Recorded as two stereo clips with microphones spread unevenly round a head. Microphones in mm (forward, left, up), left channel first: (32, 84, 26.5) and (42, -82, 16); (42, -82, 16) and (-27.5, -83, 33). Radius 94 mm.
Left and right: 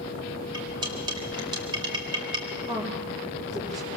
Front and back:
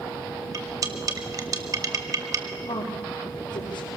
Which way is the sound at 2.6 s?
25° right.